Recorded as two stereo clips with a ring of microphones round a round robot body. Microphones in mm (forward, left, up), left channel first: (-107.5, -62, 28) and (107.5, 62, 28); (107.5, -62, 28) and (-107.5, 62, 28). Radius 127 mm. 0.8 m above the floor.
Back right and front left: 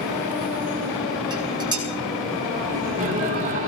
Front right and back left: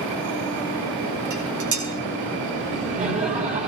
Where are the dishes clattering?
105° left, 6 m.